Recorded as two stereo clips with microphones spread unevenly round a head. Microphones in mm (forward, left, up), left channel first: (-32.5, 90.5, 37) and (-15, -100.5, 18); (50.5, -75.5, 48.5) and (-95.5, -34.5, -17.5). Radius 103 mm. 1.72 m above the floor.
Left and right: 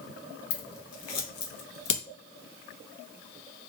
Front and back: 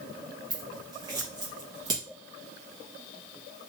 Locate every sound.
0.5 s scissors: 90° left, 1.0 m